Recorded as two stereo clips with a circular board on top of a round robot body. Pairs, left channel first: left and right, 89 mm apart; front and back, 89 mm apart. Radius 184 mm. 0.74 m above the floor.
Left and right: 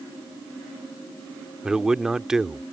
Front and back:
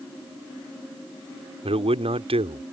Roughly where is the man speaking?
Behind.